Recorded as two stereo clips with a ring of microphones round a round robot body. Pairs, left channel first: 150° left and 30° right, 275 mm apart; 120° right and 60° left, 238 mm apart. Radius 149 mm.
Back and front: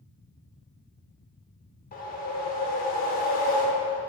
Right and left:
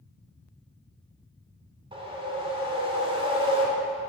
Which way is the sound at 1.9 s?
115° left.